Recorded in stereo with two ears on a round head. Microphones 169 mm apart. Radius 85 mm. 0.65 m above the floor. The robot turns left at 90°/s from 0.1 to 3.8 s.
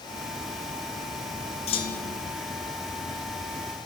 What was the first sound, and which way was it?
A clunk, 35° left.